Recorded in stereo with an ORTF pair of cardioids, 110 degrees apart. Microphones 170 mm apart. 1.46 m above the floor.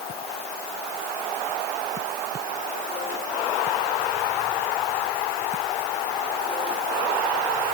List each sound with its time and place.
Only background noise.